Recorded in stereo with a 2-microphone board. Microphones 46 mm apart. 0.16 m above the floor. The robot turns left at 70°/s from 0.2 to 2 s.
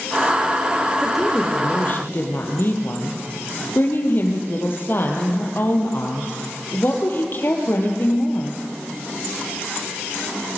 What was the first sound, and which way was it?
A woman speaking, 165° right.